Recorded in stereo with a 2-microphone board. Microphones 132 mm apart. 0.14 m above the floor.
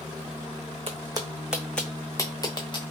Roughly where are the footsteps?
Right.